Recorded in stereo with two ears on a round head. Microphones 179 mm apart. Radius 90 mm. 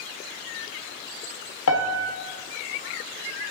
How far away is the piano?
About 0.7 m.